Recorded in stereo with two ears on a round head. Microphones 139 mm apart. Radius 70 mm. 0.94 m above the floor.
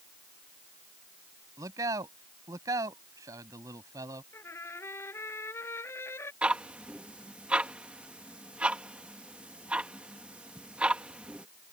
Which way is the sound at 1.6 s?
20° right (ahead or behind).